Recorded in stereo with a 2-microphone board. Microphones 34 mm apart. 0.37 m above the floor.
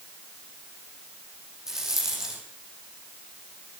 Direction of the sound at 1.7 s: 15° right (ahead or behind).